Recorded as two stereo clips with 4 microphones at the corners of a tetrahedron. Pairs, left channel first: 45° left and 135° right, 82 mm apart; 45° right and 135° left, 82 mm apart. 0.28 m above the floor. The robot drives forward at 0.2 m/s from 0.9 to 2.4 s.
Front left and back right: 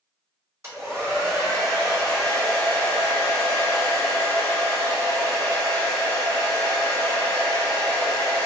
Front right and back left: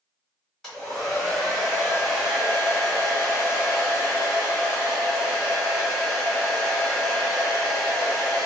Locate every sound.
0.6 s a hair dryer: 125° right, 1.4 m; by 8.5 s 140° right, 1.5 m